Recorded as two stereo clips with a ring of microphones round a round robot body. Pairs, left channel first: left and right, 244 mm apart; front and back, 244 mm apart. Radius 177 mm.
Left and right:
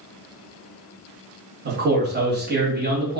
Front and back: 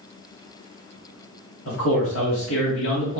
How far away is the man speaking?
About 1.8 m.